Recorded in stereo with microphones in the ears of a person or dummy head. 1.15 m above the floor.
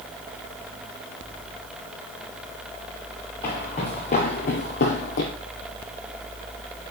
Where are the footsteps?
15° left (ahead or behind), 1.7 m; by 5.3 s 45° left (ahead or behind), 2.0 m.